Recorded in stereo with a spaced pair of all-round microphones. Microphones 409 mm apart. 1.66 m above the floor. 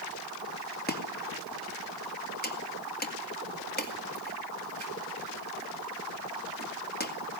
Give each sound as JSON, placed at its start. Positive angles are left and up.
{"t": 0.9, "sound": "chopping", "side_deg": 25, "distance_m": 2.0}